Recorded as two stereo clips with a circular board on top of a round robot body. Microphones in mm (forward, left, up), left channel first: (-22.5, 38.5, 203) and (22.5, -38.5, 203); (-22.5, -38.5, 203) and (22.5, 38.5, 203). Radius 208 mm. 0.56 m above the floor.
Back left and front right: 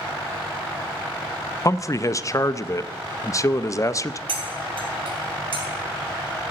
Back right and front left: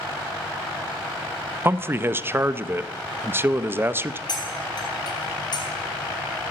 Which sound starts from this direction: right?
Cutlery clinking, at 4.3 s.